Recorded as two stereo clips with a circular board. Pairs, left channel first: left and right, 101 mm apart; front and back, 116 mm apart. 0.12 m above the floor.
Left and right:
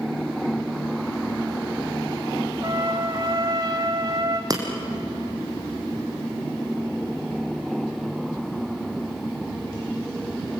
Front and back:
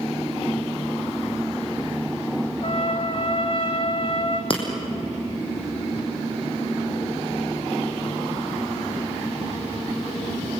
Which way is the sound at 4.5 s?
40° right.